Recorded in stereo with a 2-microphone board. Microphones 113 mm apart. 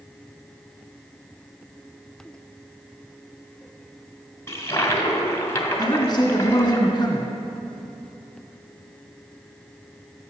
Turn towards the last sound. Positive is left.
turn(degrees=40)  # may be behind; listen again after turning